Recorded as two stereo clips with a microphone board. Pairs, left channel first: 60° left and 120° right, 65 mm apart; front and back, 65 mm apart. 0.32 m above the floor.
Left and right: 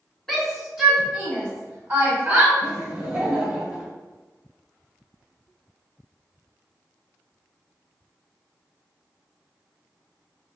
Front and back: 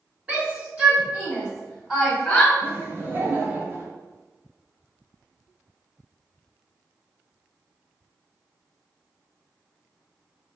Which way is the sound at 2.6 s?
Straight behind.